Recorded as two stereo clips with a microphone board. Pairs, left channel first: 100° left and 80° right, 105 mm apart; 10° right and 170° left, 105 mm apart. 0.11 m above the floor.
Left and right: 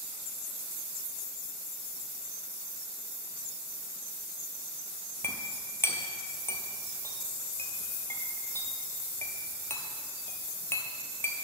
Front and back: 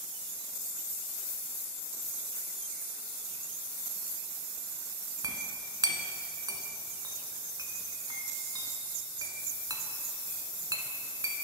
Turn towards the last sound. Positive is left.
turn(degrees=150)